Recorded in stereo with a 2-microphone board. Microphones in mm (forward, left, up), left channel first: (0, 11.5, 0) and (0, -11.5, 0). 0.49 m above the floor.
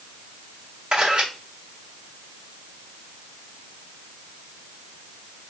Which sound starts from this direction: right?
A camera shutter, at 0.9 s.